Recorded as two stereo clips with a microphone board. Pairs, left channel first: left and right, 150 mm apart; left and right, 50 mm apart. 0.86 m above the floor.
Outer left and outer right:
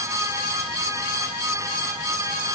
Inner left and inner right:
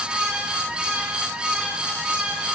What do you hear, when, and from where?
Only background noise.